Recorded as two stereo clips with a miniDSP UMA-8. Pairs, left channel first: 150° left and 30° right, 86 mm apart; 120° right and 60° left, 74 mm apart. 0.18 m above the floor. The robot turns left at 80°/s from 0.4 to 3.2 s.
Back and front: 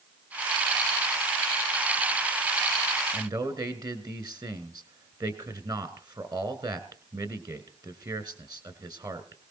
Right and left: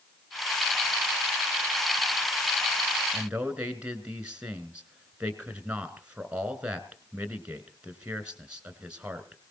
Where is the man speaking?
5° right, 2 m; by 9.4 s 10° right, 2 m.